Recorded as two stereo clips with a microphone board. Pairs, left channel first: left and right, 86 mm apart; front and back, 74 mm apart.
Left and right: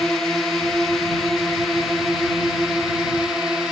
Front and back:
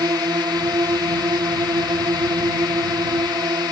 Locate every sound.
0.0 s a drone: 175° left; by 3.7 s 170° right